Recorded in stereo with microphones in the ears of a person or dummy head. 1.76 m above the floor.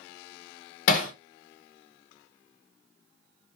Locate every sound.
0.9 s hammering: 55° left (ahead or behind), 0.8 m